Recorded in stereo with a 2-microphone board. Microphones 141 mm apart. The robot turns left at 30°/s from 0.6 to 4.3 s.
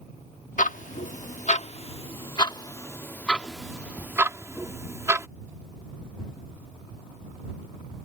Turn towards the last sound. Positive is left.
turn(degrees=-20)  # may be behind; listen again after turning